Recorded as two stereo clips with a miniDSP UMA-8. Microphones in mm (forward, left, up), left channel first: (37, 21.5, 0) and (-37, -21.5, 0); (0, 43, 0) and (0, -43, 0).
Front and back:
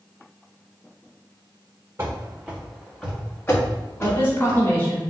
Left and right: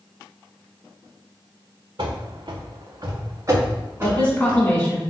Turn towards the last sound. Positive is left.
turn(degrees=40)